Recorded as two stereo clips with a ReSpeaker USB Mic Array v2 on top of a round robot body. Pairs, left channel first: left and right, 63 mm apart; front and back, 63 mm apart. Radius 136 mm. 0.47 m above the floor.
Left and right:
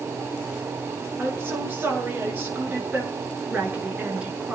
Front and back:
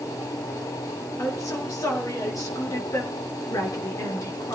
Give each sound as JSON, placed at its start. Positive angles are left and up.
{"t": 1.2, "sound": "a woman speaking", "azimuth_deg": -35, "distance_m": 8.0}